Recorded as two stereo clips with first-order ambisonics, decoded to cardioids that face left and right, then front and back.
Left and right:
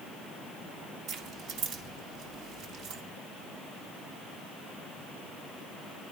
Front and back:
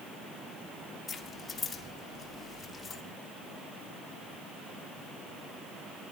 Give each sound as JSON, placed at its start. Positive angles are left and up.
{"t": 1.1, "sound": "keys jangling", "azimuth_deg": -65, "distance_m": 1.4}